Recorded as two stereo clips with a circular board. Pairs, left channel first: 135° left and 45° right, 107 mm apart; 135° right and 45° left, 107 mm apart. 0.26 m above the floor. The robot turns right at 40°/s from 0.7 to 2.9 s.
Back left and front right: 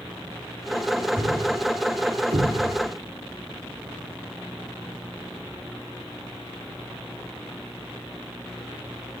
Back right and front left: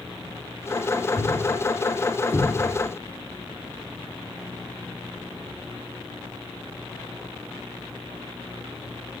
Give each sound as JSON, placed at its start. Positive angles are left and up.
{"t": 1.2, "sound": "a thud", "azimuth_deg": -115, "distance_m": 6.0}